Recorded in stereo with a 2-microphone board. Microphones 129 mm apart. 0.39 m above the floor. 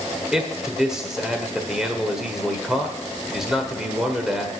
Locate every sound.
0.3 s a man speaking: 5° right (ahead or behind), 1.3 m